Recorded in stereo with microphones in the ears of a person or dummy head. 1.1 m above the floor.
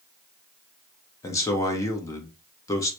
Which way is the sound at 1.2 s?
20° left (ahead or behind).